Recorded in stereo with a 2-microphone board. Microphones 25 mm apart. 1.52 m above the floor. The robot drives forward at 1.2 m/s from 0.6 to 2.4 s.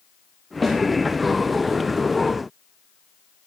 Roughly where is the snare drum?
Centre.